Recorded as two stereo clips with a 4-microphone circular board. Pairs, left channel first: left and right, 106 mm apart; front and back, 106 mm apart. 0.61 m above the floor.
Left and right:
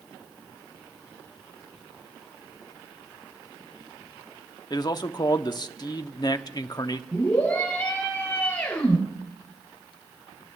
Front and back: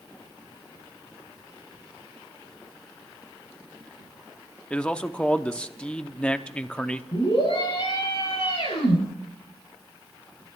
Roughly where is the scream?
Ahead.